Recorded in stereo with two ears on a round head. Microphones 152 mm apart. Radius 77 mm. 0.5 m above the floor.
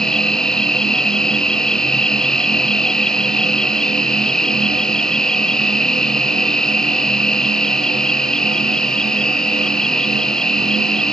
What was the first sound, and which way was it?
An insect, 5° left (ahead or behind).